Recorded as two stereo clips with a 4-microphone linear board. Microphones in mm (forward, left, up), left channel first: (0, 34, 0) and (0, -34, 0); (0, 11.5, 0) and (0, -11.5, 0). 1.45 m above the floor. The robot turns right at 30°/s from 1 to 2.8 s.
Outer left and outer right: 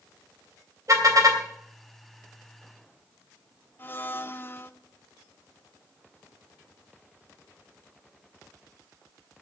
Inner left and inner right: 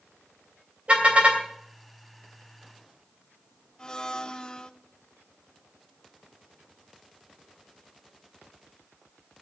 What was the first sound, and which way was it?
A car horn, 55° right (ahead or behind).